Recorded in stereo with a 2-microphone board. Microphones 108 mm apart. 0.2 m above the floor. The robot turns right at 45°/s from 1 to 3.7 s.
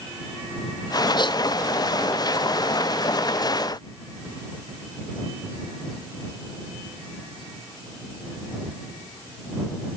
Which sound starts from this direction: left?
A gasp, at 1.2 s.